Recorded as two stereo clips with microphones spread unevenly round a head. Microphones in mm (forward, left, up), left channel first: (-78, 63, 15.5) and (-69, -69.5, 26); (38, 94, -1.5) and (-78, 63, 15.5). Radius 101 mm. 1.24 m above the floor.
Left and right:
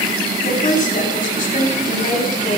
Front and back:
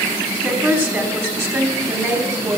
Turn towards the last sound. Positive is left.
turn(degrees=130)